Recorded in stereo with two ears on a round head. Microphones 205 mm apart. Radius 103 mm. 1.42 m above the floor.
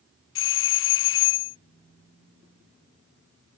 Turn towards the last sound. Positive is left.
turn(degrees=60)  # may be behind; listen again after turning